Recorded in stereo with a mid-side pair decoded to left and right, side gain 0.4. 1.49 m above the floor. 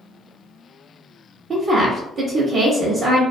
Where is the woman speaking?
65° right, 0.7 m.